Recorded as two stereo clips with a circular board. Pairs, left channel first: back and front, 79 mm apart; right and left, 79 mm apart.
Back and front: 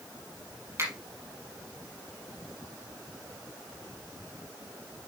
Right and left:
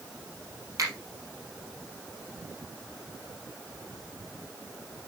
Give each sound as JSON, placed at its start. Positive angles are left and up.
{"t": 0.8, "sound": "a finger snap", "azimuth_deg": 50, "distance_m": 3.5}